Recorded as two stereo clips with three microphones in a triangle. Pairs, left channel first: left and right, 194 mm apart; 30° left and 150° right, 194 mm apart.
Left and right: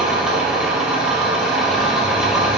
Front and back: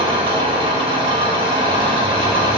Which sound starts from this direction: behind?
An engine running, at 0.0 s.